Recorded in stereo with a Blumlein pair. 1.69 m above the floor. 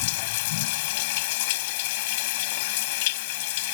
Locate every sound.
0.0 s running water: 50° left